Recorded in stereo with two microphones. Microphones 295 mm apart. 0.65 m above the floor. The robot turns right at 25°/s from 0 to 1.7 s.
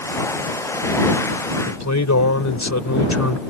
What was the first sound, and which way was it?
A man speaking, 70° left (ahead or behind).